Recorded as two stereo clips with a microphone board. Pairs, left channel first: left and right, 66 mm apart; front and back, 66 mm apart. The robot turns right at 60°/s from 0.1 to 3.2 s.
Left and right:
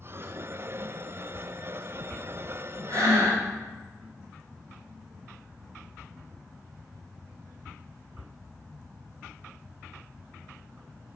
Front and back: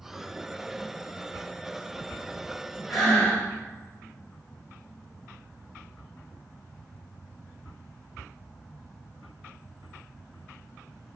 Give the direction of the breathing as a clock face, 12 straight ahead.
3 o'clock.